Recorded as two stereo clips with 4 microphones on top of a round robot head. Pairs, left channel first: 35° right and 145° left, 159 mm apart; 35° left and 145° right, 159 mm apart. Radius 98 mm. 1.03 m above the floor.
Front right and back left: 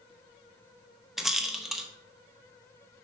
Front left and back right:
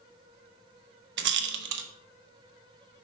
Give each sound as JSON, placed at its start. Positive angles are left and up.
{"t": 1.2, "sound": "a rattle", "azimuth_deg": -130, "distance_m": 0.7}